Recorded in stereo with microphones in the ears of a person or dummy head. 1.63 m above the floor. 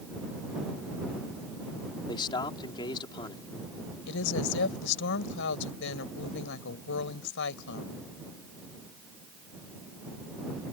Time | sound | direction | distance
2.1 | a man speaking | 25° left (ahead or behind) | ?
4.1 | a woman speaking | 70° left (ahead or behind) | ?